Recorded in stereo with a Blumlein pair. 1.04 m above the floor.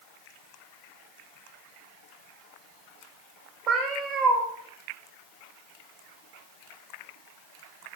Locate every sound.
3.7 s a cat meowing: 30° right, 0.7 m